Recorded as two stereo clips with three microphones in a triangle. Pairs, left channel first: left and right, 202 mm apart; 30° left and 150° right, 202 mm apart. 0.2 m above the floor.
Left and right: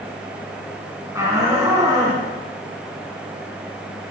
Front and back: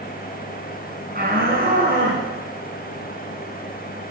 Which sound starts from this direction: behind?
A shout, at 1.1 s.